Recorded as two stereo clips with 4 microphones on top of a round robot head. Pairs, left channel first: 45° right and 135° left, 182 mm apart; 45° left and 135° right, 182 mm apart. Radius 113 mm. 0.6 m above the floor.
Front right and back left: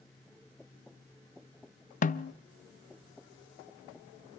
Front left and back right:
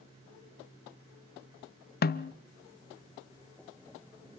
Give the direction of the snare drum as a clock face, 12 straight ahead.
12 o'clock.